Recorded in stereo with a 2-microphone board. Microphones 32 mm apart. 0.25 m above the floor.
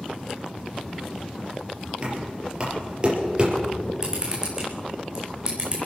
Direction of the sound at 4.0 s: 20° right (ahead or behind).